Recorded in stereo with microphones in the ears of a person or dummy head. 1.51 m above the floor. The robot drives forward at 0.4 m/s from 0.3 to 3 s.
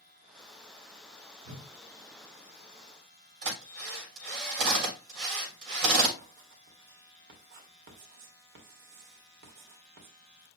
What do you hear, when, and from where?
1.4 s a whoosh: 45° right (ahead or behind), 3 m
3.4 s a drill: 70° right (ahead or behind), 7.5 m
6.2 s writing: 65° right (ahead or behind), 2.5 m